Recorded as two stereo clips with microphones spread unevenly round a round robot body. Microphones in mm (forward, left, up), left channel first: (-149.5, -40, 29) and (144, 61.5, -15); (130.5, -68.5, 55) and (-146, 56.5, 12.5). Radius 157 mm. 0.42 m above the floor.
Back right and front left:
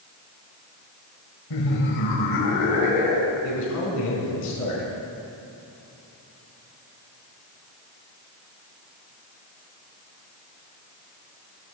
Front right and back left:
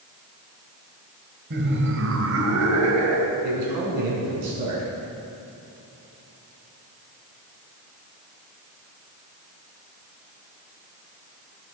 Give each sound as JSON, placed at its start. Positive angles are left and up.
{"t": 1.5, "sound": "laughter", "azimuth_deg": -155, "distance_m": 2.0}
{"t": 3.4, "sound": "a man speaking", "azimuth_deg": 170, "distance_m": 5.5}